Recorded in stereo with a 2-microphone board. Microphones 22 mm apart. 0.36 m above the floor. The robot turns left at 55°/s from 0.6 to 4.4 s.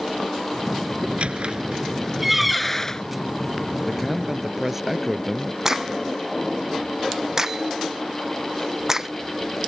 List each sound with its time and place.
1.0 s a squeak: 80° right; by 3.0 s 30° left (ahead or behind)
3.9 s a man speaking: 15° left (ahead or behind); by 5.5 s 15° right (ahead or behind)
5.7 s a crack: 25° right (ahead or behind)